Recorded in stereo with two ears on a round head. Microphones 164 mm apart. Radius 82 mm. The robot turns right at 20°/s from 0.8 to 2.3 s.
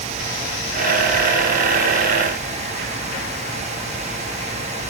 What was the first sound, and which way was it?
Only background noise.